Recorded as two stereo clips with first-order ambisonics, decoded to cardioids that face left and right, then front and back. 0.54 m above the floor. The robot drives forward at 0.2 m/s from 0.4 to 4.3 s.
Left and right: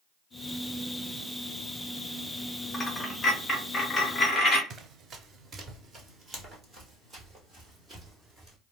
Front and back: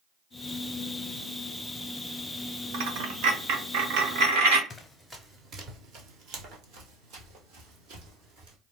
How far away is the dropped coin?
About 0.6 m.